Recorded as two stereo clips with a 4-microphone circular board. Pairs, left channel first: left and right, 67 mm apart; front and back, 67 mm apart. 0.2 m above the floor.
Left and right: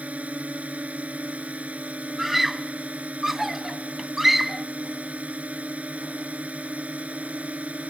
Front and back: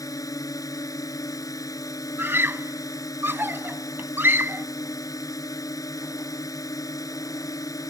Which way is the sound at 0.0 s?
20° right.